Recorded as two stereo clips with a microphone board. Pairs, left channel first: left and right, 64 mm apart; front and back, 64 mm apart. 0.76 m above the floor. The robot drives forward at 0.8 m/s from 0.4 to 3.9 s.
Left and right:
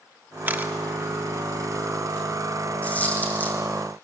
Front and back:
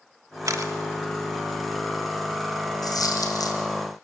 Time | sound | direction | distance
0.5 | a camera shutter | 150° right | 1.3 m
2.8 | a dropped coin | 20° left | 4 m